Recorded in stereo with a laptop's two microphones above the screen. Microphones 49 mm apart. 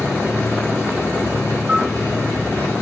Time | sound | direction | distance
0.0 | a machine running | 80° left | 1.7 m
1.7 | a bell | 15° right (ahead or behind) | 0.5 m